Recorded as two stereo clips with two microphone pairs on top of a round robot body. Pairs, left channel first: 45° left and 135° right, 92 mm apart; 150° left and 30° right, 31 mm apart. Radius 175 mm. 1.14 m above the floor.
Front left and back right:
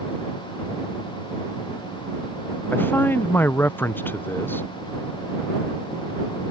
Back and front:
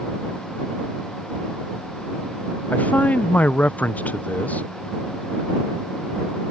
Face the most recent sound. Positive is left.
turn(degrees=115)